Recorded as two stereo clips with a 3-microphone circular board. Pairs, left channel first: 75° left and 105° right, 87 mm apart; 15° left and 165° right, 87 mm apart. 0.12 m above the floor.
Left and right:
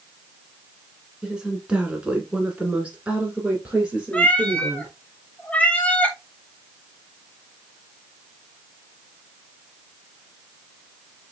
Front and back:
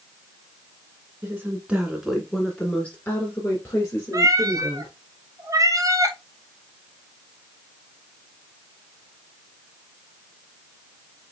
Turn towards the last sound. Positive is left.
turn(degrees=150)